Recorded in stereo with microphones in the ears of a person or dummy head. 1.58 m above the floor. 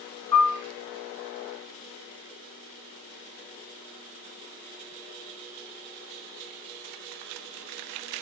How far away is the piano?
About 1.6 m.